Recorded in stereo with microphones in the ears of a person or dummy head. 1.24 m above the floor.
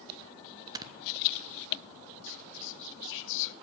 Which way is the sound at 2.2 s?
65° left (ahead or behind).